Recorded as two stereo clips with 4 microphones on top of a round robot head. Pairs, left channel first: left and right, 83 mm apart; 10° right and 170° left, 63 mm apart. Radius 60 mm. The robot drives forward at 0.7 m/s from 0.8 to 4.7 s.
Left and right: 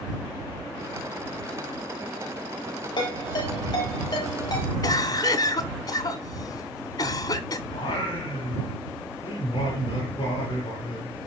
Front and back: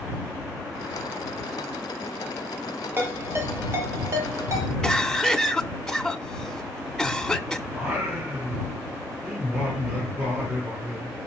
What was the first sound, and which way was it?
A ringtone, 115° left.